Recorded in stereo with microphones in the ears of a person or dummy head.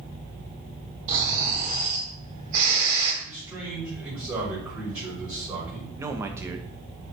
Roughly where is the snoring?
Right.